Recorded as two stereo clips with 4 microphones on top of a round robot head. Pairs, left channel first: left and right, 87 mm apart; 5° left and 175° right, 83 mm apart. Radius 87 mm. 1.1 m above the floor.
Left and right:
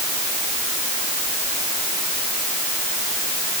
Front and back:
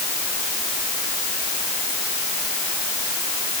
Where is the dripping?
No dripping in this recording.